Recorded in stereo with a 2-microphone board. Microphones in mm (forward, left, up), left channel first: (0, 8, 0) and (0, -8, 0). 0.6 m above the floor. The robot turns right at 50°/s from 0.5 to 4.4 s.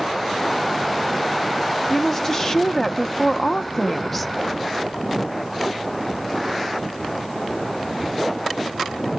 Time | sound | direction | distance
1.9 | a woman speaking | 20° left (ahead or behind) | 0.6 m